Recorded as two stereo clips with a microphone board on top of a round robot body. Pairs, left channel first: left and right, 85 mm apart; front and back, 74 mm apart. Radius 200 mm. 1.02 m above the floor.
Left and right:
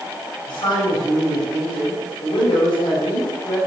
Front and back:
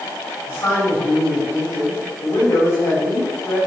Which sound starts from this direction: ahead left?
A man speaking, at 0.5 s.